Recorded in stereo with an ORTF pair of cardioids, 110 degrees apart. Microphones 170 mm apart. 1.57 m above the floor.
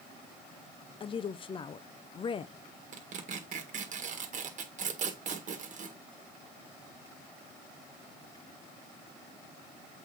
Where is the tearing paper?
45° right, 1.8 m.